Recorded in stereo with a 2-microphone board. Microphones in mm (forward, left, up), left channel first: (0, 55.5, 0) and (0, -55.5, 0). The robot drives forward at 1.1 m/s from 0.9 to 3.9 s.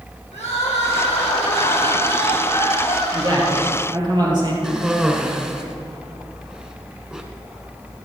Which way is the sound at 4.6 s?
5° right (ahead or behind).